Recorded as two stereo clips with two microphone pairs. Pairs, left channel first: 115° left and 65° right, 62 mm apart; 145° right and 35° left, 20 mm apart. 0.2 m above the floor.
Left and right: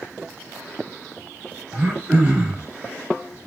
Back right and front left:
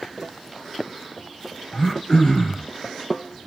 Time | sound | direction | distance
1.7 | throat clearing | 120° right | 1.5 m